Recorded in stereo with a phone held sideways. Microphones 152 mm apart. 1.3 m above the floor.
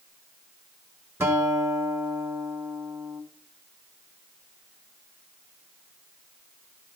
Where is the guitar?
15° right (ahead or behind), 1.5 m.